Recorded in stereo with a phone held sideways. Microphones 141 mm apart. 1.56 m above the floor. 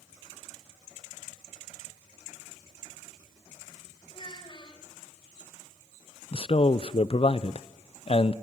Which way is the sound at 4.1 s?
35° left (ahead or behind).